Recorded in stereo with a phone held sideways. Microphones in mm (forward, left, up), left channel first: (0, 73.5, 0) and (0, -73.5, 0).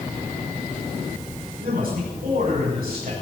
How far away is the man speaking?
About 6.5 m.